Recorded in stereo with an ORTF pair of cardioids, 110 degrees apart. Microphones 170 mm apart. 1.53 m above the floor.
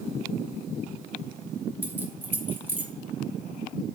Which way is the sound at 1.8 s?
10° right.